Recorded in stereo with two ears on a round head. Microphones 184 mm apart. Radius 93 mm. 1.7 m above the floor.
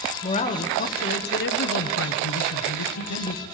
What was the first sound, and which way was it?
A man speaking, 30° left (ahead or behind).